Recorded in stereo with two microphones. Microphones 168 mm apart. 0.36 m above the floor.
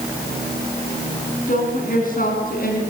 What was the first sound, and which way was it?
A woman speaking, 55° left (ahead or behind).